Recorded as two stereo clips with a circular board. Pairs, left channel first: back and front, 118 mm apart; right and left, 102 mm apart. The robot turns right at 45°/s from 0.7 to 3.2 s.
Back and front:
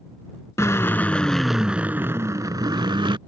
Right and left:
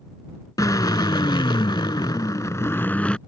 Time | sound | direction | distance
0.6 | a drill | 125° right | ?